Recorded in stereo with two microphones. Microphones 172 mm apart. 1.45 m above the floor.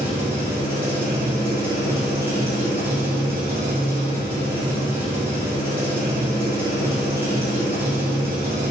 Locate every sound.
0.0 s an engine running: 15° right (ahead or behind), 1.3 m